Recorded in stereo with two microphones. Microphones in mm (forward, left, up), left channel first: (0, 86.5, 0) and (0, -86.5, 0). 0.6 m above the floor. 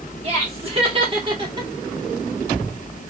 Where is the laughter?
40° right (ahead or behind), 2.5 m; by 1.7 s 25° right (ahead or behind), 1.4 m.